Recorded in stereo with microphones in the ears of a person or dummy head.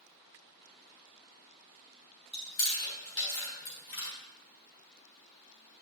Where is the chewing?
20° left (ahead or behind), 3.5 m.